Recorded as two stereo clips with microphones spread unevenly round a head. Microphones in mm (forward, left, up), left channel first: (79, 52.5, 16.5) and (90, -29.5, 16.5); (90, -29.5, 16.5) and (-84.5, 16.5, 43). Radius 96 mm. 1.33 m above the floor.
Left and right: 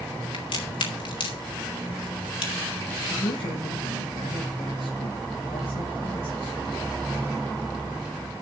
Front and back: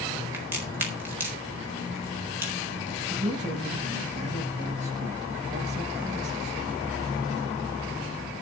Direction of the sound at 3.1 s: 110° left.